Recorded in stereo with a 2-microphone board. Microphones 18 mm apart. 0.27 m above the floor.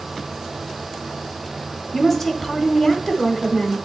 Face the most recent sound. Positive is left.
turn(degrees=10)  # may be behind; listen again after turning